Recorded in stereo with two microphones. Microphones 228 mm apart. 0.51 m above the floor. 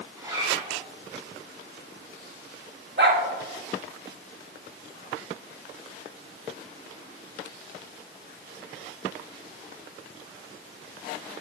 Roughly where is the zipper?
Centre.